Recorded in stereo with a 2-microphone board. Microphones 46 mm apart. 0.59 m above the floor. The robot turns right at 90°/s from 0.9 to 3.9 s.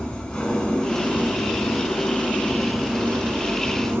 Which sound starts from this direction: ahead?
An engine running, at 0.0 s.